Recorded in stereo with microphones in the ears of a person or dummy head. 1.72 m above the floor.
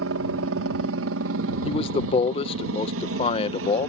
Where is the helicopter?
65° right (ahead or behind).